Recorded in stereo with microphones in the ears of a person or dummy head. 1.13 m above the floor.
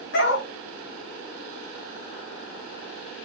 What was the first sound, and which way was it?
A dog barking, 65° left (ahead or behind).